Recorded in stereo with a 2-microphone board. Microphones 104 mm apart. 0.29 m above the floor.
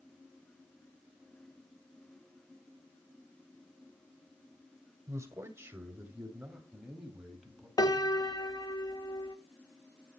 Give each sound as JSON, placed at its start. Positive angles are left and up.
{"t": 5.1, "sound": "a man speaking", "side_deg": -30, "distance_m": 1.5}
{"t": 7.8, "sound": "a piano", "side_deg": 40, "distance_m": 0.5}